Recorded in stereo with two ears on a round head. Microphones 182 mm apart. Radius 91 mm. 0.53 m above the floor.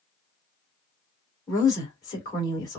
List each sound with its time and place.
1.5 s a woman speaking: 20° left (ahead or behind), 2.0 m